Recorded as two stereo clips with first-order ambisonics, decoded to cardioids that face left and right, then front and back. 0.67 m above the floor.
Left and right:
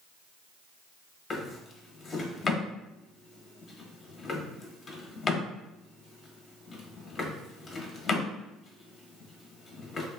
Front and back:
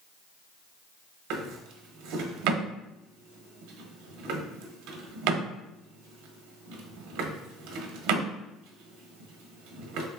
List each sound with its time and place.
1.3 s a drawer: 160° left, 0.5 m